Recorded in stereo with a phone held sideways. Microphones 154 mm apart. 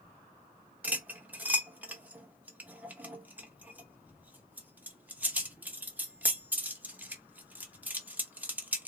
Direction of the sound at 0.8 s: 10° right (ahead or behind).